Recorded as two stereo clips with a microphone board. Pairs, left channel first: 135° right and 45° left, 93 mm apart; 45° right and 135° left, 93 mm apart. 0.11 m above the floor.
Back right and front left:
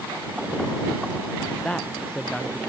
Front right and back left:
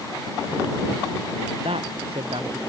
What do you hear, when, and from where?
1.6 s a man speaking: 145° left